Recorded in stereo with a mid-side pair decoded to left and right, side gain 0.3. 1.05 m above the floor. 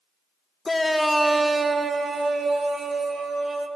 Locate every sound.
0.7 s a shout: 35° left, 0.6 m; by 3.7 s 75° right, 2.5 m